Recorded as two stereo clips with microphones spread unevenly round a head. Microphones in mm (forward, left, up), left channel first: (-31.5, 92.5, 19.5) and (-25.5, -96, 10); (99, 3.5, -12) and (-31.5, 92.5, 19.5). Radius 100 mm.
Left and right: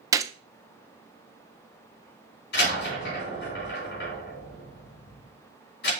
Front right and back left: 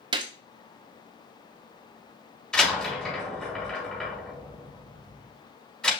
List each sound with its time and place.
0.1 s a gunshot: 150° right, 0.6 m
2.5 s a door slam: 50° left, 3.5 m